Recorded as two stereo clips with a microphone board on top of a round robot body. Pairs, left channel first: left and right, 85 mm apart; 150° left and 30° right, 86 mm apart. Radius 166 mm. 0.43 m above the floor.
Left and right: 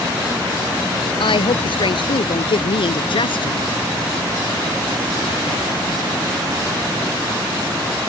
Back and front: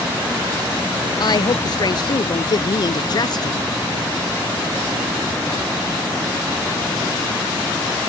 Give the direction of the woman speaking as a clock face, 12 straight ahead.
8 o'clock.